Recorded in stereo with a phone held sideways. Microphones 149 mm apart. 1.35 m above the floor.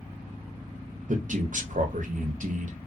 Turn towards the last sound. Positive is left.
turn(degrees=-60)  # may be behind; listen again after turning